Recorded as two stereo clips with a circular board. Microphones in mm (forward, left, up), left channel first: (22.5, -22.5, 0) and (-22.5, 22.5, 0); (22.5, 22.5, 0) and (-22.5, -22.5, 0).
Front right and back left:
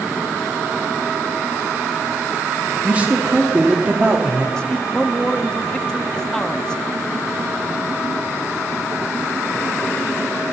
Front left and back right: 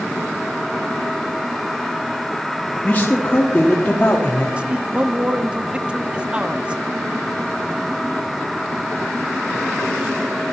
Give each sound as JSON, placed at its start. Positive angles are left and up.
{"t": 2.8, "sound": "a man speaking", "azimuth_deg": 85, "distance_m": 1.1}
{"t": 4.6, "sound": "a man speaking", "azimuth_deg": -105, "distance_m": 0.6}